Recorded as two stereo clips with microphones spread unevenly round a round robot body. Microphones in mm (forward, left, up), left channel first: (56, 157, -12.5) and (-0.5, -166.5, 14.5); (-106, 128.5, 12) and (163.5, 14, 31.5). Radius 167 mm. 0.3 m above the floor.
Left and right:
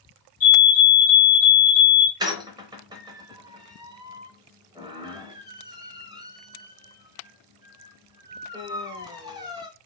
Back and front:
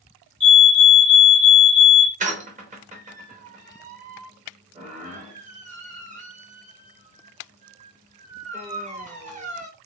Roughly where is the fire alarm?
Left.